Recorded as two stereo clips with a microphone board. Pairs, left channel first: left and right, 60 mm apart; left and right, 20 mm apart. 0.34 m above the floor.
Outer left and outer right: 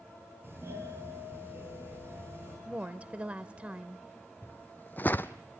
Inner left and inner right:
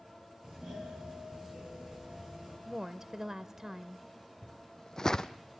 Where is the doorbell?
40° right (ahead or behind), 8.5 m.